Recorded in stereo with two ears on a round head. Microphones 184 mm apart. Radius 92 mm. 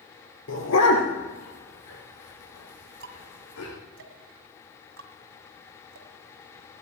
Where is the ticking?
60° right (ahead or behind), 2.0 m.